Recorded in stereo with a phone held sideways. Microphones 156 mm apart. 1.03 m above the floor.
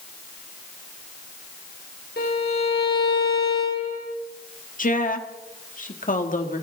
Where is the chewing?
I don't hear chewing.